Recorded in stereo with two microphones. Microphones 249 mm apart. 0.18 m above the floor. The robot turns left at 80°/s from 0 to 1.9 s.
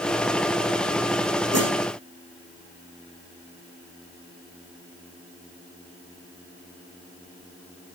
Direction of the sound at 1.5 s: 85° right.